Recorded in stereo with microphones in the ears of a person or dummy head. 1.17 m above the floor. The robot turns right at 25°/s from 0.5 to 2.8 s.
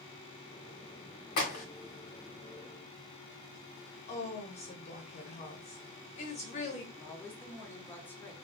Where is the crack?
45° left (ahead or behind), 1.1 m; by 1.6 s 40° left (ahead or behind), 1.1 m.